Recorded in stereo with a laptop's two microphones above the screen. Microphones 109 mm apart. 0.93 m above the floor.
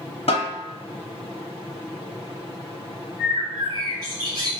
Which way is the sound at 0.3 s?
60° left (ahead or behind).